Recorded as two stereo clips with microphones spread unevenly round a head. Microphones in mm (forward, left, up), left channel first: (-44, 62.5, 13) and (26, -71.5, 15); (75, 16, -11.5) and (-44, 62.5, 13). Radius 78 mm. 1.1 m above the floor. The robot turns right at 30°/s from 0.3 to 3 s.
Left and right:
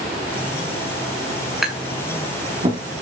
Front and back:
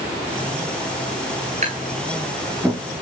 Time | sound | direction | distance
1.6 | tapping | 150° right | 7 m